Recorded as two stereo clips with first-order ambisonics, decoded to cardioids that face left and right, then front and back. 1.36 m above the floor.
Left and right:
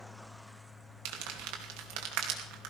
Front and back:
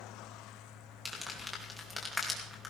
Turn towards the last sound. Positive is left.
turn(degrees=-85)